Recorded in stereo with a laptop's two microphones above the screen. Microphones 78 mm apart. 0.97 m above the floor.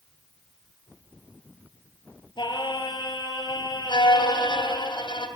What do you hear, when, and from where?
2.4 s singing: 75° left (ahead or behind), 5 m
3.9 s a violin: 85° left, 3 m